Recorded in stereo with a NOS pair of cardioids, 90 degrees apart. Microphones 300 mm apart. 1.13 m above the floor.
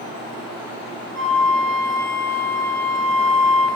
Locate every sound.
1.1 s a flute: 40° right, 2.5 m